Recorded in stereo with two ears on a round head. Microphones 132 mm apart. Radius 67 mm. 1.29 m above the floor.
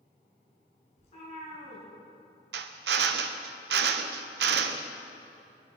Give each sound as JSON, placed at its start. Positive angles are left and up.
{"t": 1.0, "sound": "a cat meowing", "side_deg": 45, "distance_m": 5.0}
{"t": 2.5, "sound": "a drill", "side_deg": -85, "distance_m": 0.8}